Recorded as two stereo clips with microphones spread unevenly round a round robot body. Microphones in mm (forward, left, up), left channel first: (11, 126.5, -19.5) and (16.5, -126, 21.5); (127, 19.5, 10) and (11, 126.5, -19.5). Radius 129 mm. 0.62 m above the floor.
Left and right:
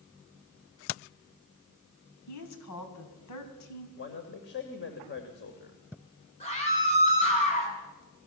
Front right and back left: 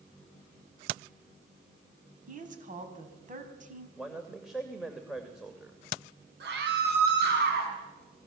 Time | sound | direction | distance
2.3 | a woman speaking | 105° left | 4.5 m
4.0 | a man speaking | 50° left | 2.5 m
6.4 | a scream | 155° left | 6.5 m